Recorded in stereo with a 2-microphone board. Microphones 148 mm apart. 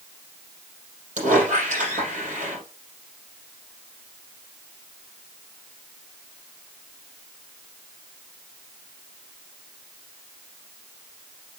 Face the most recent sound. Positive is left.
turn(degrees=-55)  # may be behind; listen again after turning